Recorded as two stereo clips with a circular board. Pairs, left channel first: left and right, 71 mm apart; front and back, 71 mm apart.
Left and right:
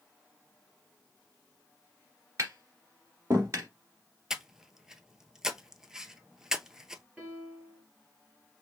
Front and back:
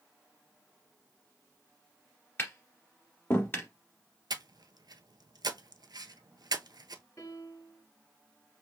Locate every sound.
2.4 s tapping: 50° right, 1.9 m
4.3 s breathing: 175° right, 0.6 m
7.2 s a piano: 30° right, 2.5 m